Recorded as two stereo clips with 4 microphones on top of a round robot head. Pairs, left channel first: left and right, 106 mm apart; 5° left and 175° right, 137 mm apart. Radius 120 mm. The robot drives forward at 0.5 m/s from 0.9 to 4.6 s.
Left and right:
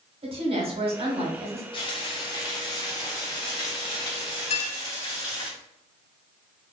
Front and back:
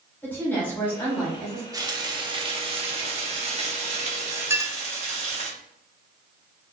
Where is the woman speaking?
70° right, 2.5 m; by 1.6 s 80° right, 2.5 m.